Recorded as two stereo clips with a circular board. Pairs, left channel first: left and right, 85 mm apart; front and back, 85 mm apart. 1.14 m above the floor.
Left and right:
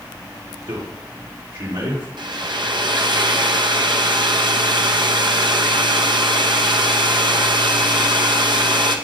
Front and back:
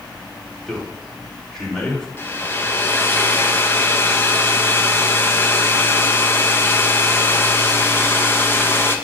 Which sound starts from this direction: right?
A man speaking, at 0.7 s.